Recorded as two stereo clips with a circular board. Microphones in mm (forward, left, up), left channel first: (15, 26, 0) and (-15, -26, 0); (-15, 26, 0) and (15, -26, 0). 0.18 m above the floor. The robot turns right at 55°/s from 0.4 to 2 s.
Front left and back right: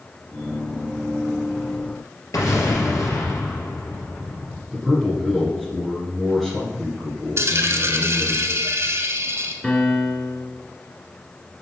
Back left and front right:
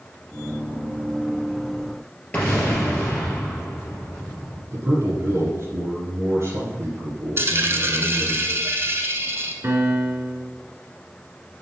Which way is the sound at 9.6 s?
15° right.